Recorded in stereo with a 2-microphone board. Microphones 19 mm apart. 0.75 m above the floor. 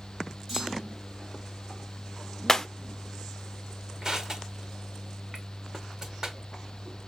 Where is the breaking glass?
25° left (ahead or behind), 0.5 m.